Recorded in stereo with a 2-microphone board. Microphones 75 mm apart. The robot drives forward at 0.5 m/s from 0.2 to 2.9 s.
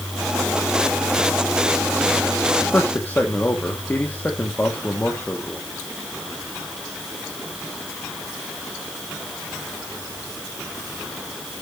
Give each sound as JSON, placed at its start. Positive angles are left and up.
{"t": 2.7, "sound": "a man speaking", "side_deg": 25, "distance_m": 1.6}